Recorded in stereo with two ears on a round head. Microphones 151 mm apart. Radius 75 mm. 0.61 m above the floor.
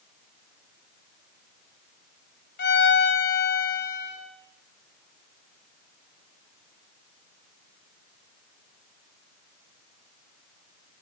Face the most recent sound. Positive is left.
turn(degrees=60)  # may be behind; listen again after turning